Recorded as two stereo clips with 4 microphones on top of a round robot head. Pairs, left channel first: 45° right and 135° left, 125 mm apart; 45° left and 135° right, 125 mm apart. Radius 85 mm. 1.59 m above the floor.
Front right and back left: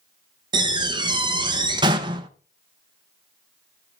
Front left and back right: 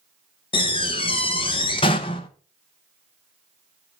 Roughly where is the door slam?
Left.